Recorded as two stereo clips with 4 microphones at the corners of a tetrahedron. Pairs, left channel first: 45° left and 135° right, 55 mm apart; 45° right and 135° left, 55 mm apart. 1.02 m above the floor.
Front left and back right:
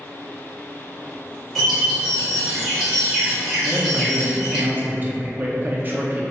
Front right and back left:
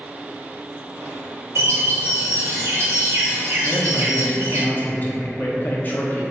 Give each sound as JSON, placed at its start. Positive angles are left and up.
{"t": 1.6, "sound": "a bird", "azimuth_deg": 130, "distance_m": 1.4}
{"t": 3.6, "sound": "a man speaking", "azimuth_deg": -90, "distance_m": 0.5}